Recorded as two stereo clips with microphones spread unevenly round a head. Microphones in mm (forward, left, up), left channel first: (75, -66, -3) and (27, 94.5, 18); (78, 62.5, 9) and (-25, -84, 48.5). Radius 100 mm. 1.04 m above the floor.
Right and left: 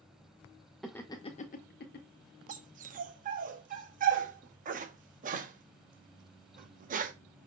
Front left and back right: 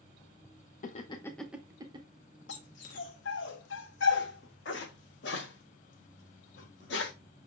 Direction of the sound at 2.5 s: 90° left.